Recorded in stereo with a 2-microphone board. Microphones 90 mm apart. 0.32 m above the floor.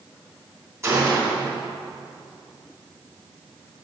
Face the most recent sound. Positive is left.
turn(degrees=-30)  # may be behind; listen again after turning